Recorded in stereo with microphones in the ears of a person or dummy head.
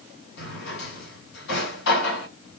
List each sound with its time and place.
0.4 s a drawer: 60° left (ahead or behind), 2 m